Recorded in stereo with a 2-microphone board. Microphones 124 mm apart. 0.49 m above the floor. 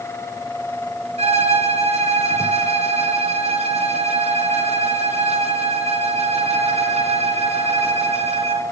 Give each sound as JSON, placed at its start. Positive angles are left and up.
{"t": 1.2, "sound": "a violin", "side_deg": -65, "distance_m": 2.5}